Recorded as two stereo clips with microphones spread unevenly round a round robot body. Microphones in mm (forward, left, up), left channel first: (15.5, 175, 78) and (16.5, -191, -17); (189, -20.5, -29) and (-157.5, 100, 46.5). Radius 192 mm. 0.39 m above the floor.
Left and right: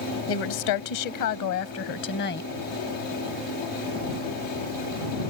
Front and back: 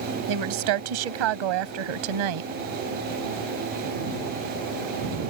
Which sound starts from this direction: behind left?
A woman speaking, at 0.3 s.